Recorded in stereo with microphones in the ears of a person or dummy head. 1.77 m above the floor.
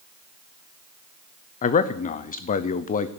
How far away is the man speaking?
About 0.8 m.